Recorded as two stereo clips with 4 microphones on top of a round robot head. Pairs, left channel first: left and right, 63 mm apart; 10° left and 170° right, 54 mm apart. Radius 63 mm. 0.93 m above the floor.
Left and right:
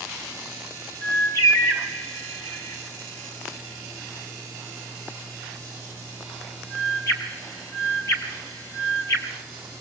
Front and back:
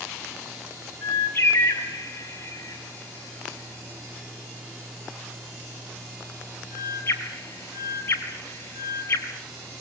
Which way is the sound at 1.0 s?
55° left.